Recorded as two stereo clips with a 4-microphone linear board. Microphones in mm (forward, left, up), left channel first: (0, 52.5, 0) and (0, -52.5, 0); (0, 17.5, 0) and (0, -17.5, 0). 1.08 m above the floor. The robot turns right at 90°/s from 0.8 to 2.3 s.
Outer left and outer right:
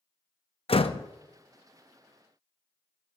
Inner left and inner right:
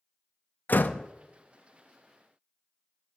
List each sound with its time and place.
0.7 s a door slam: 65° left (ahead or behind), 0.6 m; by 1.1 s 50° left (ahead or behind), 0.6 m